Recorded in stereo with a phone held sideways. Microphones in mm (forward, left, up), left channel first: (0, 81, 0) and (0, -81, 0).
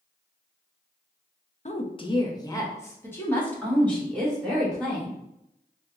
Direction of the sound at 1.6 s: 45° left (ahead or behind).